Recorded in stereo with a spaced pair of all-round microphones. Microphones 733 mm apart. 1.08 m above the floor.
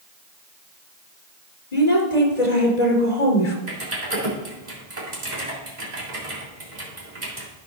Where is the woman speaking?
65° left (ahead or behind), 3 m.